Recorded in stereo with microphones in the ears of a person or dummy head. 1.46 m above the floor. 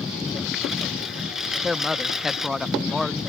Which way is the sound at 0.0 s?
Centre (ahead or behind).